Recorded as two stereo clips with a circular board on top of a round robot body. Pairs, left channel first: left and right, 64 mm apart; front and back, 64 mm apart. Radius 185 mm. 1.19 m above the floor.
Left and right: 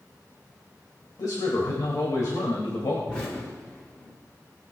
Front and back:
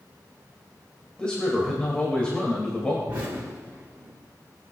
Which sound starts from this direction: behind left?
An explosion, at 3.1 s.